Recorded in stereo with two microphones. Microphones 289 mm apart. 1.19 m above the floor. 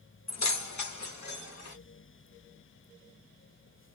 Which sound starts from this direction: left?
Keys jangling, at 0.3 s.